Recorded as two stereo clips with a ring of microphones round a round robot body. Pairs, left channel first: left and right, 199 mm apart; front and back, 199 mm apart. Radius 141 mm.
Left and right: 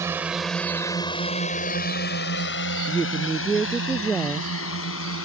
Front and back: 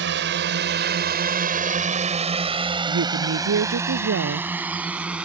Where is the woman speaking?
175° left.